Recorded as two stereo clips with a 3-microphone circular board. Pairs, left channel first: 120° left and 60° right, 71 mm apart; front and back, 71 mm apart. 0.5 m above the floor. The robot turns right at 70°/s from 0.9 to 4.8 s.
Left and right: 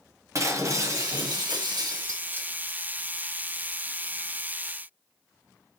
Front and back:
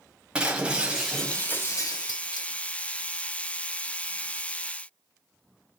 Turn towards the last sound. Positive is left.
turn(degrees=170)